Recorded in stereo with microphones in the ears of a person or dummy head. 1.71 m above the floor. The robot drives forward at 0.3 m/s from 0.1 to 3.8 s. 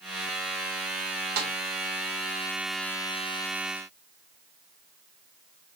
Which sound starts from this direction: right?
A snare drum, at 1.4 s.